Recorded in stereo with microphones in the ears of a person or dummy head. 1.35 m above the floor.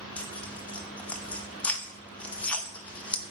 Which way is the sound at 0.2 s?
10° left (ahead or behind).